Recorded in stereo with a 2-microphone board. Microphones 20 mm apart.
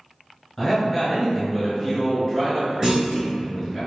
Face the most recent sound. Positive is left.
turn(degrees=-30)  # may be behind; listen again after turning